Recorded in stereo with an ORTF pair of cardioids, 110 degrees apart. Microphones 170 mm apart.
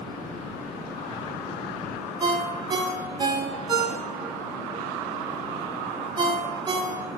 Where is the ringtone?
25° right, 0.6 m.